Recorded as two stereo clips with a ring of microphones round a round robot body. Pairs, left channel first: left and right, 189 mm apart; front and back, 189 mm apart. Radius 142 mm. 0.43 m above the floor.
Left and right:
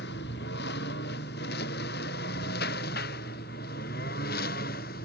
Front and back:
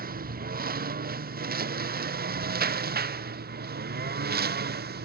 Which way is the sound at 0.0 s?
140° left.